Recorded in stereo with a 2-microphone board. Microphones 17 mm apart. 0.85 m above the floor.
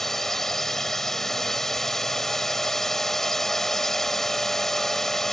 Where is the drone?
20° left (ahead or behind).